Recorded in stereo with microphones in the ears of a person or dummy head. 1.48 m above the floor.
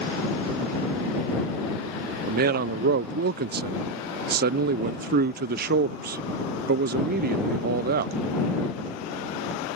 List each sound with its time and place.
2.3 s a man speaking: 55° right (ahead or behind)